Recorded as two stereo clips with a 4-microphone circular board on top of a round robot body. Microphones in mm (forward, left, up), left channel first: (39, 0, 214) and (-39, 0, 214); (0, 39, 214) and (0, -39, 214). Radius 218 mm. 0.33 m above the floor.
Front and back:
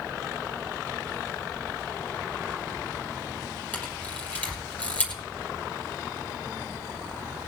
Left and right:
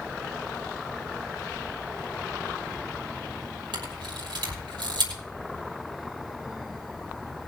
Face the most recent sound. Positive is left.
turn(degrees=-70)